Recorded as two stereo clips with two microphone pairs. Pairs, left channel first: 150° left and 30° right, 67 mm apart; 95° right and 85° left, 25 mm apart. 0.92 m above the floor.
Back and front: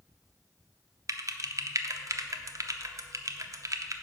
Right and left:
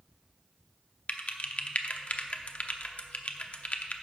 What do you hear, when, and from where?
1.1 s typing on a keyboard: 65° right, 0.7 m